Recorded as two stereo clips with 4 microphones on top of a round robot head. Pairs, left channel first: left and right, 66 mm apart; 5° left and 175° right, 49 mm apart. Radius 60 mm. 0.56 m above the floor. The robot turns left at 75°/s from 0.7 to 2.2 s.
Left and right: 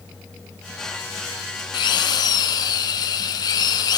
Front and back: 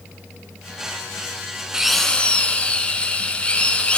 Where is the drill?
110° left, 4.5 m; by 4.0 s 75° left, 4.5 m.